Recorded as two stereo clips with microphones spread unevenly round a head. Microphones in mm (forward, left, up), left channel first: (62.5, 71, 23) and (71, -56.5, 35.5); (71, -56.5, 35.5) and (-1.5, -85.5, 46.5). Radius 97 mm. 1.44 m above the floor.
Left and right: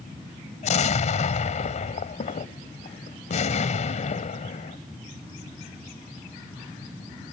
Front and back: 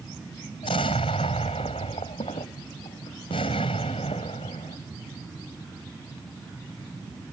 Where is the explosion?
70° left.